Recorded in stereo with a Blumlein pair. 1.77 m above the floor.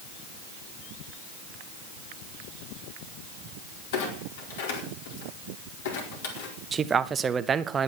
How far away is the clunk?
About 4.5 m.